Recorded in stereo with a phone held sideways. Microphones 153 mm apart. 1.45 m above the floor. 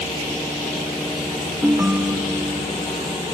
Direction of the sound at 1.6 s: 15° right (ahead or behind).